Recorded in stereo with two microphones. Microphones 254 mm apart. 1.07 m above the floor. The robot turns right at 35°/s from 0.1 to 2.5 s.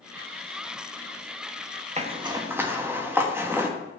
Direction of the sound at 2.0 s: 30° right (ahead or behind).